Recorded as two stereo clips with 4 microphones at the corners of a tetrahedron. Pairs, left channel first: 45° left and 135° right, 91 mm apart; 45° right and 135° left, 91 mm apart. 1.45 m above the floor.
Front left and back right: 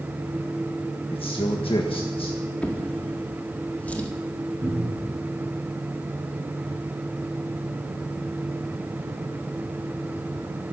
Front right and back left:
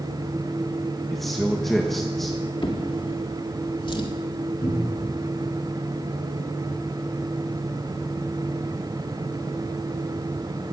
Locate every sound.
1.1 s a man speaking: 45° left, 1.4 m
2.6 s a drawer: 30° right, 1.9 m
4.6 s a cupboard door: 80° right, 8 m